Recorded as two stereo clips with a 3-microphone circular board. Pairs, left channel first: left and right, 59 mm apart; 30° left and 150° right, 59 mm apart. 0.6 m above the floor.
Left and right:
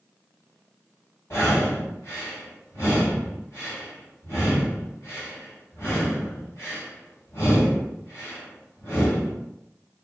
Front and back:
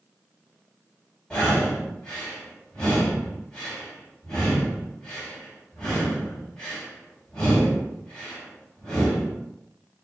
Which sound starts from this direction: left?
Breathing, at 1.3 s.